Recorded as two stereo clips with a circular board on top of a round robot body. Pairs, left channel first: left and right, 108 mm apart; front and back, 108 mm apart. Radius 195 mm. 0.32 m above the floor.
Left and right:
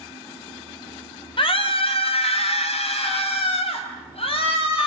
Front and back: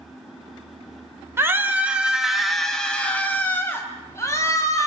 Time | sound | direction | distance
1.4 | a scream | 115° left | 3 m